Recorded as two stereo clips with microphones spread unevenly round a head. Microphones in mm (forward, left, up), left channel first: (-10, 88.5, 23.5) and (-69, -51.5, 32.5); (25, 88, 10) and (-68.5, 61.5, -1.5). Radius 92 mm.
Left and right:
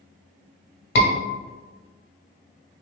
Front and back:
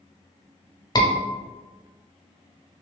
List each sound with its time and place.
0.9 s a scream: 65° left, 1.3 m